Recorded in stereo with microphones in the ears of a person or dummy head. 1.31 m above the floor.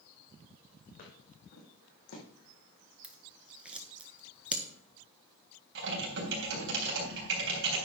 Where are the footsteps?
45° left (ahead or behind), 4.5 m; by 2.2 s 60° left (ahead or behind), 4 m.